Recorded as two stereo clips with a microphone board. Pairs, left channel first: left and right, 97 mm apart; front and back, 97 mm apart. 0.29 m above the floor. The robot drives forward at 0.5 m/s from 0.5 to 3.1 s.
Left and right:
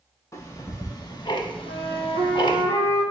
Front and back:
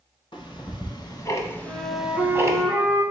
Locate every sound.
0.3 s ticking: 35° left, 0.9 m; by 2.6 s 125° left, 0.6 m
1.6 s a flute: 85° right, 1.4 m; by 3.0 s 115° right, 1.5 m